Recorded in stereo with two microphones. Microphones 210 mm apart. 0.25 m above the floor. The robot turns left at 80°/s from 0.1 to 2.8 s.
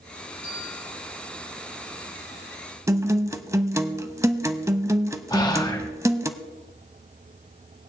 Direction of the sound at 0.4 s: 115° left.